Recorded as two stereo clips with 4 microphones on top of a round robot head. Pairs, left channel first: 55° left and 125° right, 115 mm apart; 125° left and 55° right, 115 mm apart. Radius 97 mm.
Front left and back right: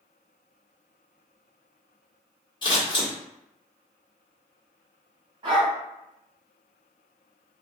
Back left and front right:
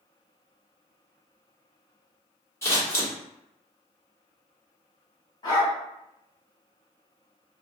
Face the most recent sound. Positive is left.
turn(degrees=180)